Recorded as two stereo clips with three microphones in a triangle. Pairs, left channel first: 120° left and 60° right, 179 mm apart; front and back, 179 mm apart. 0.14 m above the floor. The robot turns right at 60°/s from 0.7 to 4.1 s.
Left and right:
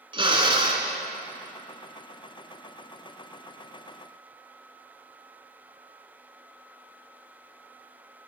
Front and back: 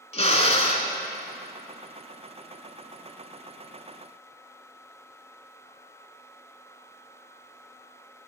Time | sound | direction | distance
0.1 | a drill | 20° right | 0.7 m